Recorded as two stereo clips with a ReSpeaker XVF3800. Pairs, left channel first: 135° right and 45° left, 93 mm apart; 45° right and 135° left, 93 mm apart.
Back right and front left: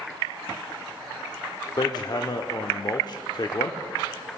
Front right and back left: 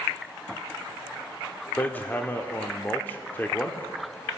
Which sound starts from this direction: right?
Hammering, at 1.8 s.